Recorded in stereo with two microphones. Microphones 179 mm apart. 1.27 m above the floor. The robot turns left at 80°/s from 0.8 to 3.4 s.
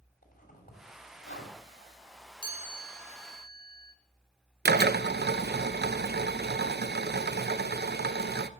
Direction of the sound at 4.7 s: 60° right (ahead or behind).